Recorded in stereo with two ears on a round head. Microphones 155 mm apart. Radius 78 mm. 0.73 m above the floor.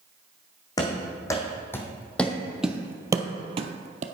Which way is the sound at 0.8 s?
20° left (ahead or behind).